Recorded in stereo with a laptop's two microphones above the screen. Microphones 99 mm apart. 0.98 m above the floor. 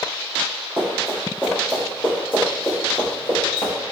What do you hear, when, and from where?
0.8 s running footsteps: 20° right (ahead or behind), 1.5 m; by 3.7 s 55° left (ahead or behind), 1.5 m